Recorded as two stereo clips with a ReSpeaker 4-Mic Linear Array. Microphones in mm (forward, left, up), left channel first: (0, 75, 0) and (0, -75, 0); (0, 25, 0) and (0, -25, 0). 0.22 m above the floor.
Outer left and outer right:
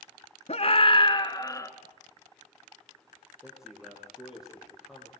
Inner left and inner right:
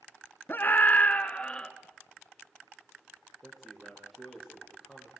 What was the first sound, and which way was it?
A scream, 45° left (ahead or behind).